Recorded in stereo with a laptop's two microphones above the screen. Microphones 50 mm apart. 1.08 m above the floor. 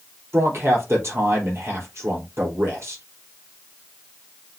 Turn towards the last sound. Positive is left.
turn(degrees=-55)  # may be behind; listen again after turning